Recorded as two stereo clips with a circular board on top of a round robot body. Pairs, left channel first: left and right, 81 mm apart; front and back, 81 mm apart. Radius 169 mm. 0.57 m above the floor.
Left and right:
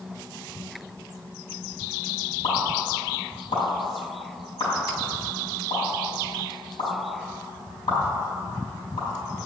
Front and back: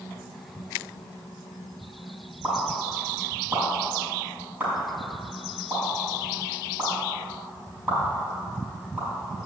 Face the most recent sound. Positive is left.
turn(degrees=110)